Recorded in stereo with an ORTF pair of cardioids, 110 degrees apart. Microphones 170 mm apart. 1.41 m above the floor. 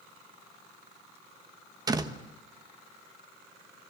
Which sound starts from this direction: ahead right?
A door slam, at 1.9 s.